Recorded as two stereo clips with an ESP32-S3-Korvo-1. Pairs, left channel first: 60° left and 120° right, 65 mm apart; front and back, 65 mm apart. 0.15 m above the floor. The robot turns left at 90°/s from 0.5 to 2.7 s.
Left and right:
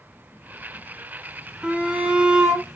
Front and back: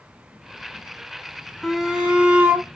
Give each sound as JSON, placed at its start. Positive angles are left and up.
{"t": 1.6, "sound": "a shout", "azimuth_deg": -90, "distance_m": 1.0}